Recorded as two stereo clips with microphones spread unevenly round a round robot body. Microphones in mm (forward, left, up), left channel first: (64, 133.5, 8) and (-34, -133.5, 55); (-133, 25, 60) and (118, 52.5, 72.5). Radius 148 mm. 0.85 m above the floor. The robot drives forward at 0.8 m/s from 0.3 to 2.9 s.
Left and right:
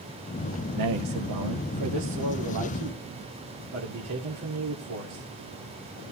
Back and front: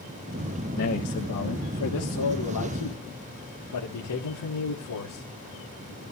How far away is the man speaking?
About 1.3 m.